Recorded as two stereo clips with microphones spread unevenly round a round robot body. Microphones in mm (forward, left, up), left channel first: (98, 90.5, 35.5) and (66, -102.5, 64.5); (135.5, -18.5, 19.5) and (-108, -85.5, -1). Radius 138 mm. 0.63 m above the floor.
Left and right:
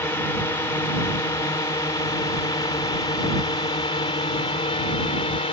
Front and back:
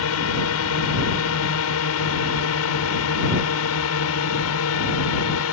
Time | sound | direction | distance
0.0 | a drone | 10° left | ?